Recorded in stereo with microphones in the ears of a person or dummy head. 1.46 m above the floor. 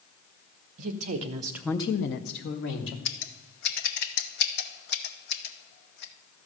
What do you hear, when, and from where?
0.8 s a woman speaking: 50° right (ahead or behind), 1.2 m; by 3.0 s 75° left (ahead or behind), 1.5 m
3.0 s scissors: 65° left (ahead or behind), 0.8 m